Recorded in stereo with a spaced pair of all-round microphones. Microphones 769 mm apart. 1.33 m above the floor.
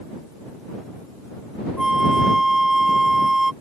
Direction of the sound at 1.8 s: 55° left (ahead or behind).